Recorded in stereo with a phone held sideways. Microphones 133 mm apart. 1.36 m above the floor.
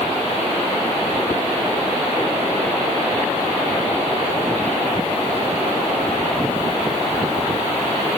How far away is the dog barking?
I don't hear a dog barking.